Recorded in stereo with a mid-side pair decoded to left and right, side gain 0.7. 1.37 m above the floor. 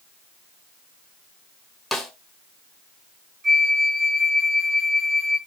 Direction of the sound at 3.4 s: 25° right.